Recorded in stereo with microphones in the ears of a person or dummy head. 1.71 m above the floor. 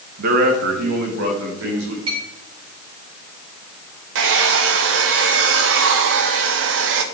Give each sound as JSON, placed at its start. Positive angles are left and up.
{"t": 0.2, "sound": "a man speaking", "side_deg": -45, "distance_m": 1.7}
{"t": 2.1, "sound": "a clink", "side_deg": -30, "distance_m": 5.0}
{"t": 4.2, "sound": "a hair dryer", "side_deg": -70, "distance_m": 1.1}